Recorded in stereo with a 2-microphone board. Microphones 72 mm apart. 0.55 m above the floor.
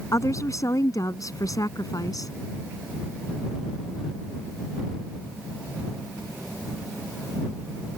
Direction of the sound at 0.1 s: 50° left (ahead or behind).